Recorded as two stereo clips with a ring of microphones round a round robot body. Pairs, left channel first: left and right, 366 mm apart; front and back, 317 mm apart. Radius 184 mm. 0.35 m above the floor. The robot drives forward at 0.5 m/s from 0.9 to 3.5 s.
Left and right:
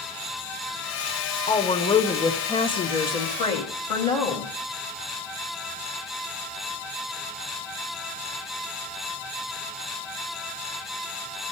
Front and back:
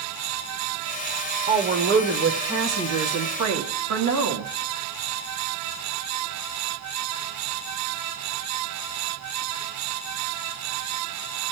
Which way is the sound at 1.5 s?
145° left.